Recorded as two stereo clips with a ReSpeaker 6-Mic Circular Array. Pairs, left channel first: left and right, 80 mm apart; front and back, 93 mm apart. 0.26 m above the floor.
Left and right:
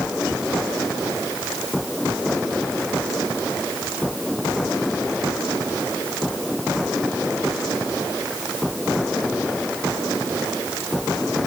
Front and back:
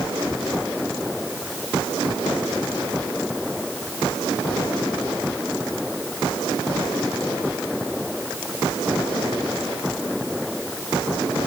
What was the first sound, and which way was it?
Only background noise.